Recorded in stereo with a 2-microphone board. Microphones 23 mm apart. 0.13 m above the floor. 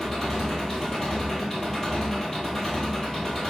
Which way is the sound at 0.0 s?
15° left (ahead or behind).